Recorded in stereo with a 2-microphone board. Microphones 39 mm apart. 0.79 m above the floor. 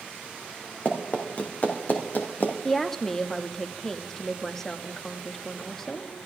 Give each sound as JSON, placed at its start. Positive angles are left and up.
{"t": 0.8, "sound": "running footsteps", "side_deg": 40, "distance_m": 2.5}
{"t": 2.6, "sound": "a woman speaking", "side_deg": 10, "distance_m": 0.9}